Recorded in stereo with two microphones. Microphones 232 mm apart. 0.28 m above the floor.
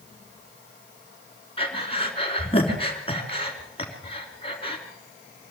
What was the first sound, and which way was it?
Breathing, 25° left (ahead or behind).